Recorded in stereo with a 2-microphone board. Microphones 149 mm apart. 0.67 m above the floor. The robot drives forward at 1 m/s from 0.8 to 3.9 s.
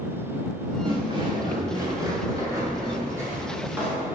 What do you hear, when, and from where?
0.8 s footsteps: 35° right (ahead or behind), 4.5 m; by 4.0 s 10° right (ahead or behind), 8.5 m